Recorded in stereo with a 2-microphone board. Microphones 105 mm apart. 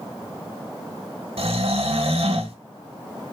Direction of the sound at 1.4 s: 70° right (ahead or behind).